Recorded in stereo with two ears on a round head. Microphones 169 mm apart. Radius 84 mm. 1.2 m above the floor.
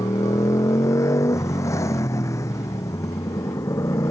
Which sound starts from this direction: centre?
A motorcycle, at 0.0 s.